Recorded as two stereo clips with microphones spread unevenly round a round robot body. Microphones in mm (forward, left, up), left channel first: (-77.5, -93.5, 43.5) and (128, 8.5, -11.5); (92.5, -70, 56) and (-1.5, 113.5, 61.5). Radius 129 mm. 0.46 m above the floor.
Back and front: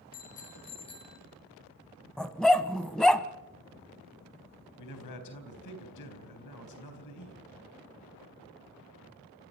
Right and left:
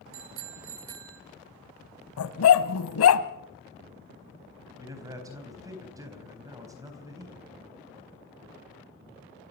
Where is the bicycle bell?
145° left, 3 m; by 1.2 s 125° left, 2.5 m.